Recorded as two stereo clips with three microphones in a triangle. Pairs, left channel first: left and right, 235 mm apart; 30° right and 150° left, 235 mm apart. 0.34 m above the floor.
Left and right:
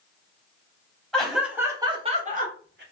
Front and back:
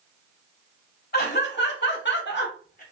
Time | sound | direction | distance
1.1 | laughter | 5° left | 1.9 m